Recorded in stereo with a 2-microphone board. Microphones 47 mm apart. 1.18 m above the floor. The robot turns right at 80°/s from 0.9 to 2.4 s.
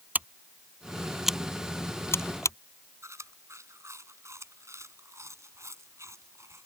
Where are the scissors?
35° right (ahead or behind); by 2.6 s 80° left.